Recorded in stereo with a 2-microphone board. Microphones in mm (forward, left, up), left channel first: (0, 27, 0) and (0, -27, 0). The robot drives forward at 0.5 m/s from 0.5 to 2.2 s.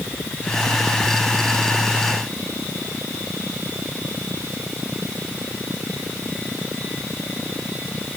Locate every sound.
Only background noise.